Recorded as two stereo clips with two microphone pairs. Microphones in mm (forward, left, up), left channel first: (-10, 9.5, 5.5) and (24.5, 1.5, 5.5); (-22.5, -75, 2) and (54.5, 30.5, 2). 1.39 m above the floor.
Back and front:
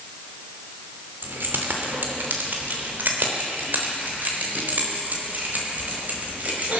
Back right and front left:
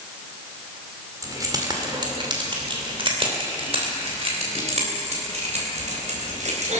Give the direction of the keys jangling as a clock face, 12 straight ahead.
12 o'clock.